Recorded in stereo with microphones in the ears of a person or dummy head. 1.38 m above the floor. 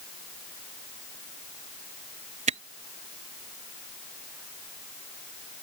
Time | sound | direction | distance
2.5 | a camera shutter | 35° right (ahead or behind) | ?